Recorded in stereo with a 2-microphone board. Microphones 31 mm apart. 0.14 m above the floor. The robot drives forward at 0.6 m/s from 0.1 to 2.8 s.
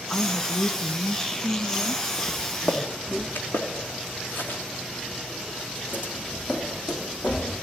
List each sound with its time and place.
0.1 s a woman speaking: 15° left (ahead or behind), 1.1 m; by 3.3 s 10° left (ahead or behind), 1.7 m
2.3 s footsteps: 85° left, 2.5 m